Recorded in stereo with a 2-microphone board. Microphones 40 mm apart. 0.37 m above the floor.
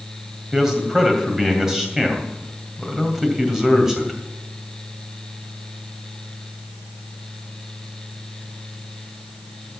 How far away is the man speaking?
About 2.5 m.